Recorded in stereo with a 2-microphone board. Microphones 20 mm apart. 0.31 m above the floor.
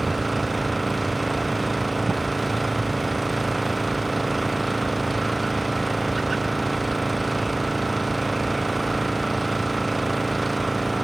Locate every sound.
0.0 s an engine running: 5° right (ahead or behind)